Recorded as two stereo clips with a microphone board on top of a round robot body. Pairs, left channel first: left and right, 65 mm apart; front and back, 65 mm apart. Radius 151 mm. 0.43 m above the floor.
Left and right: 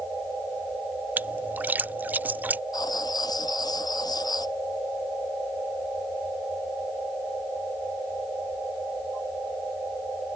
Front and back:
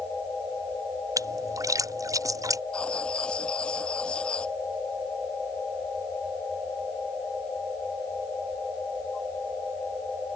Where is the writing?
75° left.